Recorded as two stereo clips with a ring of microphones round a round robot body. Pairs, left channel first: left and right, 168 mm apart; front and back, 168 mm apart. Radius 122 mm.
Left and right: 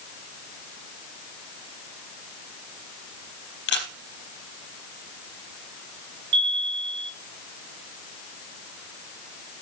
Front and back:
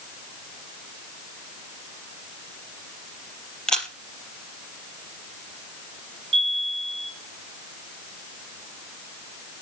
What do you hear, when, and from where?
3.7 s a camera shutter: 85° left, 3.5 m
6.3 s a chime: 115° right, 4 m